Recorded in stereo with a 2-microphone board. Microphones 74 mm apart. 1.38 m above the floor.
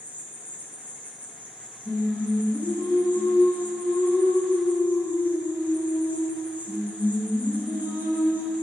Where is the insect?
20° right (ahead or behind), 0.8 m.